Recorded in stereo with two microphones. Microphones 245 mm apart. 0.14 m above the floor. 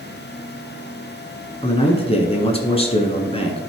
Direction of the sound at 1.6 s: 25° left (ahead or behind).